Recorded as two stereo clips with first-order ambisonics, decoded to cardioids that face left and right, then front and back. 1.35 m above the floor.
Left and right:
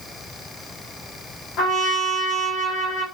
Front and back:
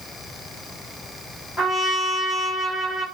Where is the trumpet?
70° left, 1.7 m.